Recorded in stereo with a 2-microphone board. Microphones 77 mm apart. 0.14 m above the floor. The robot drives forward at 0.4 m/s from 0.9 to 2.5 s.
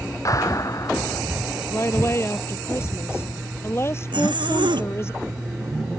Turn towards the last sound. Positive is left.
turn(degrees=-80)